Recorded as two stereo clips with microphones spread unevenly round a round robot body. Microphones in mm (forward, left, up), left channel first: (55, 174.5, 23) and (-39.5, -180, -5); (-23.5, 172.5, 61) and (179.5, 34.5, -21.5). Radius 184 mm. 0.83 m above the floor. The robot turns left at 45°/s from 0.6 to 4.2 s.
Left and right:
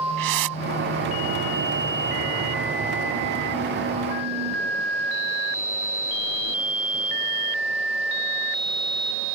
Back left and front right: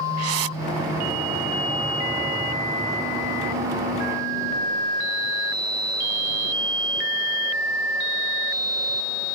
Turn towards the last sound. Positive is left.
turn(degrees=130)